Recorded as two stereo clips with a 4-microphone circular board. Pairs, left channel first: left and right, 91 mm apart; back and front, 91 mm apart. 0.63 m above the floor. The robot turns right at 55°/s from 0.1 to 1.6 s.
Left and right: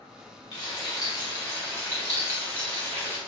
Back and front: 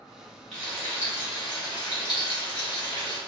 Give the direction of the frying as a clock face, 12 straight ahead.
9 o'clock.